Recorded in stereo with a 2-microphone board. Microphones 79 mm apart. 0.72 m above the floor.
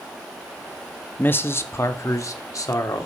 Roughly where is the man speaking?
Left.